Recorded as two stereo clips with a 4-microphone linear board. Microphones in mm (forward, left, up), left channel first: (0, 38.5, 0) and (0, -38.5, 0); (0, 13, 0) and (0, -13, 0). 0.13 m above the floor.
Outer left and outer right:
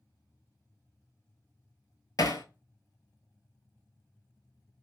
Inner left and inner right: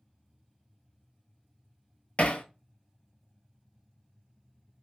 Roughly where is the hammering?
Left.